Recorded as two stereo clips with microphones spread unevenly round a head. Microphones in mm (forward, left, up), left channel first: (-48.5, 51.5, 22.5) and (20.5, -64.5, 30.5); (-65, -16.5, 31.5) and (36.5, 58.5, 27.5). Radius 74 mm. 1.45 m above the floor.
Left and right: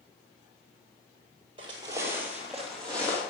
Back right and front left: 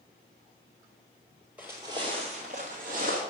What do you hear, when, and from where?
1.6 s footsteps: 40° right, 1.7 m; by 3.2 s 40° left, 2.5 m